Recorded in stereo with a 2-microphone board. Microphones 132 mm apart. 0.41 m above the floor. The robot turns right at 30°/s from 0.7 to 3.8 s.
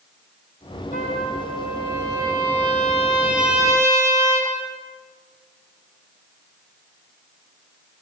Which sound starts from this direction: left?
A trumpet, at 0.9 s.